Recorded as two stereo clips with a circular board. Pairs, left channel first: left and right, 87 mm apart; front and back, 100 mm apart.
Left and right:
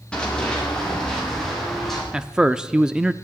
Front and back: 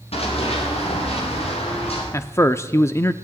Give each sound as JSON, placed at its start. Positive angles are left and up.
{"t": 0.1, "sound": "running footsteps", "azimuth_deg": 10, "distance_m": 6.5}
{"t": 2.1, "sound": "a man speaking", "azimuth_deg": -15, "distance_m": 0.7}